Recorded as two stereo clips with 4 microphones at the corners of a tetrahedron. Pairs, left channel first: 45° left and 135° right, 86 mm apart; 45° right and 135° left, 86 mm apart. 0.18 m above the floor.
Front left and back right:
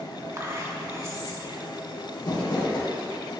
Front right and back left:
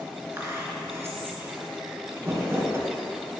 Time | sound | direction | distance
0.4 | whispering | 175° right | 2 m
2.2 | crumpling | 75° left | 2.5 m